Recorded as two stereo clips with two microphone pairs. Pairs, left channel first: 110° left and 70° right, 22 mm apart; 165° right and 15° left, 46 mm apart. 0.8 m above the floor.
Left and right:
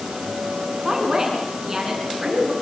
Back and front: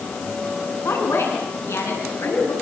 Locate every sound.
0.8 s a woman speaking: 140° right, 7.5 m